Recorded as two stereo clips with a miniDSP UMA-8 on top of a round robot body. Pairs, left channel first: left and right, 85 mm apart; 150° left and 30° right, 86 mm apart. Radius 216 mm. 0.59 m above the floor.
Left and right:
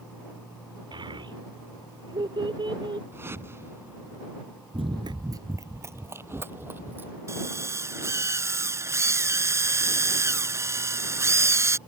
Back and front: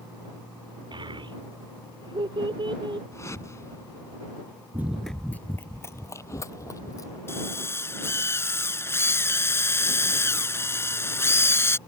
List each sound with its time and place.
0.9 s a child speaking: 60° right
3.1 s a whoosh: 155° right
4.7 s running footsteps: 95° right; by 7.2 s 160° right
7.3 s a drill: 150° right